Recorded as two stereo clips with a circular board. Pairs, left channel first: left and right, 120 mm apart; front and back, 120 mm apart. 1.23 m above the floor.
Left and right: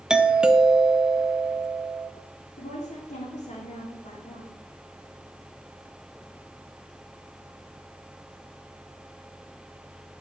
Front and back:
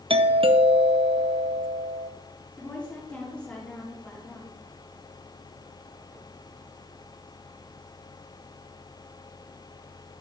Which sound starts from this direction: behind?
A doorbell, at 0.1 s.